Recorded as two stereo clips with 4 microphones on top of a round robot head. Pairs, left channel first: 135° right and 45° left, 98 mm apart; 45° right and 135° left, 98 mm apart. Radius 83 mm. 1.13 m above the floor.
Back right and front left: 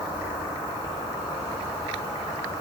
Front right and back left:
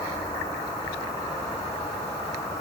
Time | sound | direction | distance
0.0 | an insect | 90° right | 0.9 m